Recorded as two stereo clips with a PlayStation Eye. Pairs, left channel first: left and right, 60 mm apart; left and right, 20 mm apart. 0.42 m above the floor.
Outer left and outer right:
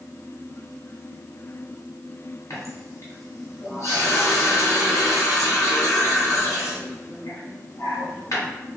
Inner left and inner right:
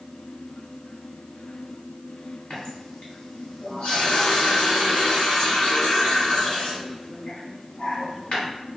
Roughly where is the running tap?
Left.